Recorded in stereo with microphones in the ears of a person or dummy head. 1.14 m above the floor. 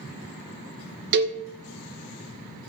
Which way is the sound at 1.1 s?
55° right (ahead or behind).